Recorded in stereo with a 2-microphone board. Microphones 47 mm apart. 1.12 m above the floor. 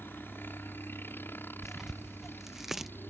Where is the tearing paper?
10° right (ahead or behind).